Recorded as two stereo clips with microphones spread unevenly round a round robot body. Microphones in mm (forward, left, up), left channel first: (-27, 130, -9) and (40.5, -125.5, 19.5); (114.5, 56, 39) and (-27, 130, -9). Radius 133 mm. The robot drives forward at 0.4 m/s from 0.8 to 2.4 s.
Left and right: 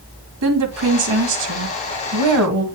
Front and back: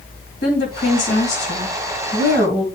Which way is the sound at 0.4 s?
70° right.